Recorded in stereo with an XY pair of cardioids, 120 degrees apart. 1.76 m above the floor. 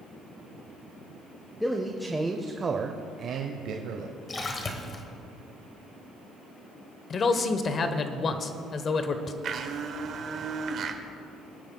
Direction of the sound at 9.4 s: 55° right.